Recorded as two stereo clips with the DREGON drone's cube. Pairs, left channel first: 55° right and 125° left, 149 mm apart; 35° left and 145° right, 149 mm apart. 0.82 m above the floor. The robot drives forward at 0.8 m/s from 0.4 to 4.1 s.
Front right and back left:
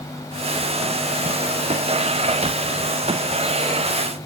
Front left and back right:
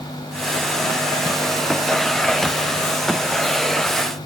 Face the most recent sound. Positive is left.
No sound to turn to.